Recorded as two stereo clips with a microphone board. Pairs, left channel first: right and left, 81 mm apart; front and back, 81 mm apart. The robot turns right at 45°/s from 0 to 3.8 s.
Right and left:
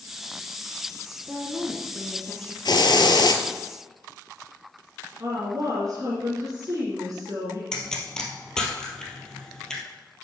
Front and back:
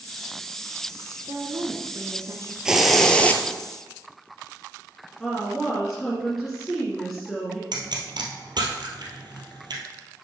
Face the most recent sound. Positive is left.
turn(degrees=-170)